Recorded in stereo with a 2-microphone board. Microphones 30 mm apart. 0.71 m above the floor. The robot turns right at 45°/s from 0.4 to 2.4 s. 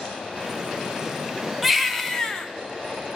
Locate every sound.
1.6 s a baby crying: 5° right, 1.1 m; by 2.5 s 35° left, 1.1 m